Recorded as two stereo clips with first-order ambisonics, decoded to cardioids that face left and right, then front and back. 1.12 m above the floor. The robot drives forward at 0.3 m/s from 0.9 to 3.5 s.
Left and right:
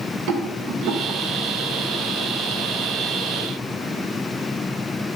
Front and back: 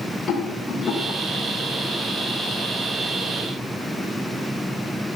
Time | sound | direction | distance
0.3 | a rattle | 75° right | 1.8 m